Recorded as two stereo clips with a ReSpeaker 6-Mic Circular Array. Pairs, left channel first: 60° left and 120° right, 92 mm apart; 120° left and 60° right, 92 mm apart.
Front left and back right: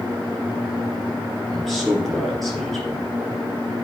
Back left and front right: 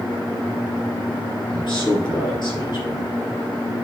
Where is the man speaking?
145° left, 3 m.